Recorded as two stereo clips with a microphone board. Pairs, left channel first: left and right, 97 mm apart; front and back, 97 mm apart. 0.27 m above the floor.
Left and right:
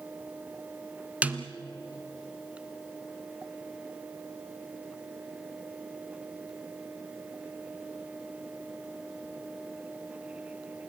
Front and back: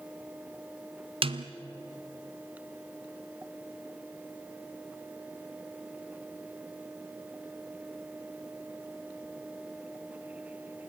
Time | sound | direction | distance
1.2 | a snare drum | 165° right | 1.0 m